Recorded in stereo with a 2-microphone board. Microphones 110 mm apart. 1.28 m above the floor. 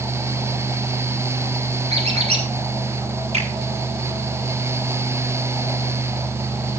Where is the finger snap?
80° right, 8 m.